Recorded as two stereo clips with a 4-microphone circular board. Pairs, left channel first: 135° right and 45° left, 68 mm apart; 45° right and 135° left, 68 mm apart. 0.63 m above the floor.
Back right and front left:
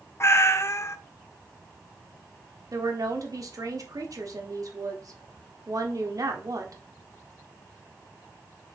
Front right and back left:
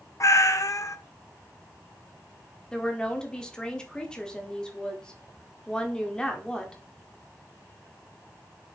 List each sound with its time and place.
0.2 s a cat meowing: 85° right, 0.6 m
2.7 s a woman speaking: 30° left, 1.3 m